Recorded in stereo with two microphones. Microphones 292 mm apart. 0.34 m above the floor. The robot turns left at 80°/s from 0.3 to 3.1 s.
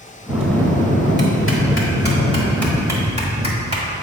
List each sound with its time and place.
0.3 s a bell: 165° right, 1.2 m; by 3.9 s 30° right, 1.2 m